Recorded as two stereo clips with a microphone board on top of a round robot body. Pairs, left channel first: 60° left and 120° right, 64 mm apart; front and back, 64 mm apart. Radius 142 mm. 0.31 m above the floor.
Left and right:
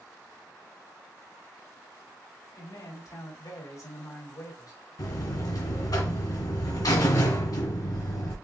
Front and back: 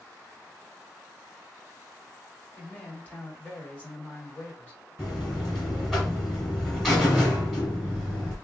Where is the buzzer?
85° left, 1.7 m.